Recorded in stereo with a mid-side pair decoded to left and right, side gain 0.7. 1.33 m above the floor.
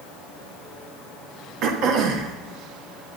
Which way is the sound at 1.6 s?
65° right.